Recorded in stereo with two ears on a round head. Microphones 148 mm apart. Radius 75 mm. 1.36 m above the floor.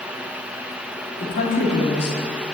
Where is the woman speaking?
75° left (ahead or behind), 3 m.